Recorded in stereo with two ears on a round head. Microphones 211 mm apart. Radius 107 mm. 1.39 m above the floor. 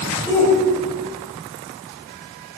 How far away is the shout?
About 7 m.